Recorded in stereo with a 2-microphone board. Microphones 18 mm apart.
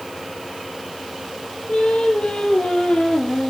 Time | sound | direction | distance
1.7 | singing | 60° left (ahead or behind) | 3.5 m